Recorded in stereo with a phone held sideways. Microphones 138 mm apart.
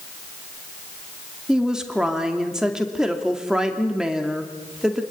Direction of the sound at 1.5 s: 5° right (ahead or behind).